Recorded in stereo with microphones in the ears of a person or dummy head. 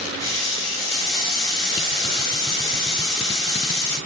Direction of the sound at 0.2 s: 20° left (ahead or behind).